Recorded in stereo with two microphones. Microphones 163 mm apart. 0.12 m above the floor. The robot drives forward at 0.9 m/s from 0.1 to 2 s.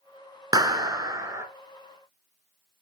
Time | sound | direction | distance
0.5 | a clap | 20° right (ahead or behind) | 0.9 m